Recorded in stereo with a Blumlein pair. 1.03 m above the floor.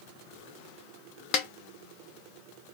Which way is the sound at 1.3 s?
30° left.